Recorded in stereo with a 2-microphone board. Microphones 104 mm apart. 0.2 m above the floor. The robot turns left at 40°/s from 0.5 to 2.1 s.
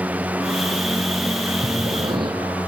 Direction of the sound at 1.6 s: 70° right (ahead or behind).